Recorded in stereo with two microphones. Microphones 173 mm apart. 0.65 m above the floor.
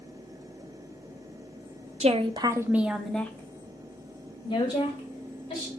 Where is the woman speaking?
40° right (ahead or behind), 0.7 m; by 5.7 s 35° left (ahead or behind), 2 m.